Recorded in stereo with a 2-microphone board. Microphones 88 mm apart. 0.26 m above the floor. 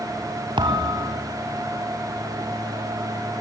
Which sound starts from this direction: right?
A thud, at 0.6 s.